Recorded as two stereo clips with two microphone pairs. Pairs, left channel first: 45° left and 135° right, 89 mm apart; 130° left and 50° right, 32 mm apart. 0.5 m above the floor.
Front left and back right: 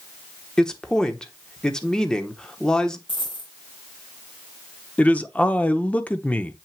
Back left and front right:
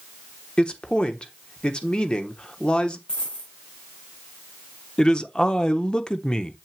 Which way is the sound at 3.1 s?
65° left.